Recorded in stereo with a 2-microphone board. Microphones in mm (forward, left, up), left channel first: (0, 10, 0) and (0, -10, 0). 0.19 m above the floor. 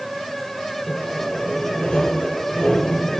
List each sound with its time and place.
0.9 s sawing: 60° left (ahead or behind), 4 m